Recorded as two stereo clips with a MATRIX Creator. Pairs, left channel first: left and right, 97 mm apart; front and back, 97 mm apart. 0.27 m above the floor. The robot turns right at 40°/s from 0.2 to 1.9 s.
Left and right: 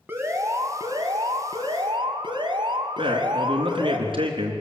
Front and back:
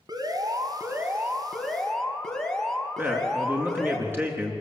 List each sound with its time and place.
0.1 s an alarm: 155° right, 2.5 m; by 4.0 s 85° right, 2.5 m
3.0 s a man speaking: 115° right, 4 m